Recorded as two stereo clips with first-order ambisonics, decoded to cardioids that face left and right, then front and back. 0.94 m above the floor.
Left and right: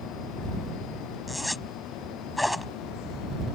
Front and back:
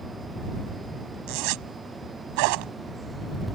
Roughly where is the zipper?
Behind.